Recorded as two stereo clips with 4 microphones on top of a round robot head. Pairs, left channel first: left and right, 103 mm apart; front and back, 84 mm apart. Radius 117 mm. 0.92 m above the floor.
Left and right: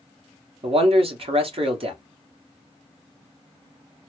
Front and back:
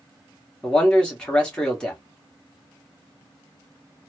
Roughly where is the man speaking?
Right.